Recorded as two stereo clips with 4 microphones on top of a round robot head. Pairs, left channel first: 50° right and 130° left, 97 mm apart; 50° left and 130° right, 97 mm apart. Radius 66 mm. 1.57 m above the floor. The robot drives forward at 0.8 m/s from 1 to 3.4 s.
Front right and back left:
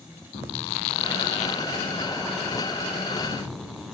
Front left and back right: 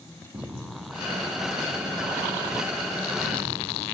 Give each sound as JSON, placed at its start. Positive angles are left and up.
{"t": 0.3, "sound": "footsteps", "azimuth_deg": -65, "distance_m": 5.0}